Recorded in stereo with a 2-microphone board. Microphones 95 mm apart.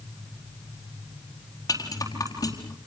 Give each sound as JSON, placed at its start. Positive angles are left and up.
{"t": 1.7, "sound": "a rattle", "side_deg": 40, "distance_m": 4.0}